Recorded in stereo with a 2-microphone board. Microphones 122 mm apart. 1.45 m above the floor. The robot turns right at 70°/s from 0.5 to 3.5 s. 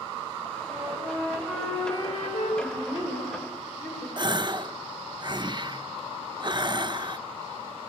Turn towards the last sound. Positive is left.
turn(degrees=-40)  # may be behind; listen again after turning